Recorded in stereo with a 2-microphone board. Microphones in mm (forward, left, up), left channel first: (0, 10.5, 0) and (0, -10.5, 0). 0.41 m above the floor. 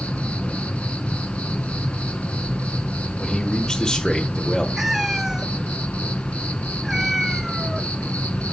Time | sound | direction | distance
0.0 | an insect | 80° left | 0.8 m
3.2 | a man speaking | 25° left (ahead or behind) | 1.2 m
4.8 | a cat meowing | 15° right (ahead or behind) | 0.7 m